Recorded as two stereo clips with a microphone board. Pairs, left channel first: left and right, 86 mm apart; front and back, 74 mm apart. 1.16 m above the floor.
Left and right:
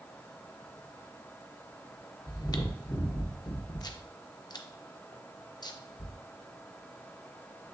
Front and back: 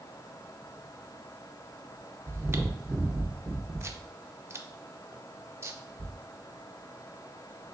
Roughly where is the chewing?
Behind left.